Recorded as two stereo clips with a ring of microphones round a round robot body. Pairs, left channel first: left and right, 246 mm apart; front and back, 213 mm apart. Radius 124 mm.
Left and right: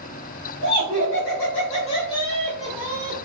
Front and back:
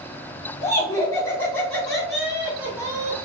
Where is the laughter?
70° left, 1.8 m; by 3.2 s 130° right, 1.2 m.